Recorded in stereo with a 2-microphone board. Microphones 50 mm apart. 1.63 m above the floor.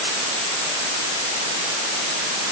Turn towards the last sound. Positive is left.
No sound to turn to.